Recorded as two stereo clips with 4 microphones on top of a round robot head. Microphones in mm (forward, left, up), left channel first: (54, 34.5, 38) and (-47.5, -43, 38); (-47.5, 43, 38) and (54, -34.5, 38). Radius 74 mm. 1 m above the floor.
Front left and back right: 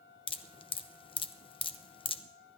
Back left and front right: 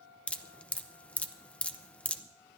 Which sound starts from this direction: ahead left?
Dripping, at 0.3 s.